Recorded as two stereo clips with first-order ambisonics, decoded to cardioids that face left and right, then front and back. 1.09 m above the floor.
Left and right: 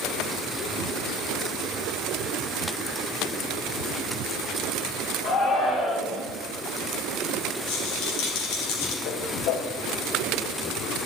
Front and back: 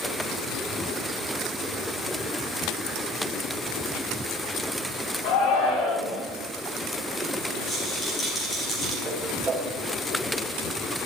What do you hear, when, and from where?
5.2 s a shout: 25° left, 9.5 m
7.7 s a rattle: 75° left, 5.5 m
9.1 s a whoosh: 105° left, 4 m